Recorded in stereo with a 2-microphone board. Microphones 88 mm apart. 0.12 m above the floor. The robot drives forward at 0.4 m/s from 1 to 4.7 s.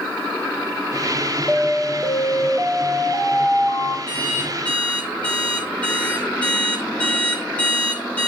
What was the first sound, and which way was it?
An alarm, 15° left (ahead or behind).